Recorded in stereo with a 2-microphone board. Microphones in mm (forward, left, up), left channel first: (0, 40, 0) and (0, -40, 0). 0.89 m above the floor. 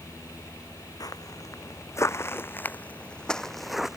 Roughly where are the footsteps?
Left.